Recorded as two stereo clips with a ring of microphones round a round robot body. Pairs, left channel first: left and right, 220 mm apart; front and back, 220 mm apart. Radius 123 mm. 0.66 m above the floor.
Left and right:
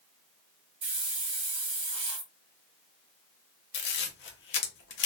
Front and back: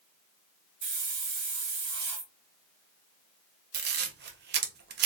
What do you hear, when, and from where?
0.8 s a hiss: 150° right, 1.3 m
3.7 s a camera shutter: 135° left, 0.7 m